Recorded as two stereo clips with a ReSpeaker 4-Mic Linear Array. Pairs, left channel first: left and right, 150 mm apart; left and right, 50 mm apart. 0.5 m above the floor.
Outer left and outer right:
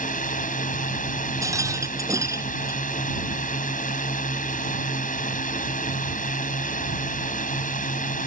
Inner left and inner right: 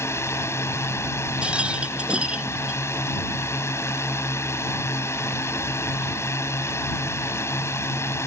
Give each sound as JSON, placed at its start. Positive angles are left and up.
{"t": 0.0, "sound": "a drone", "side_deg": 65}
{"t": 1.4, "sound": "a rattle", "side_deg": -20}